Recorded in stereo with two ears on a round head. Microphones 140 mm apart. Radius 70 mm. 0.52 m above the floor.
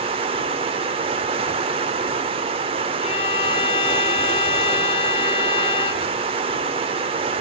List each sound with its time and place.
0.0 s running water: 35° right (ahead or behind), 0.9 m
3.0 s a violin: 35° left (ahead or behind), 1.8 m